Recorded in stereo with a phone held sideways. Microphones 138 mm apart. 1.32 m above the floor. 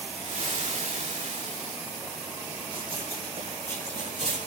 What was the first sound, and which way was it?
Frying, 65° right (ahead or behind).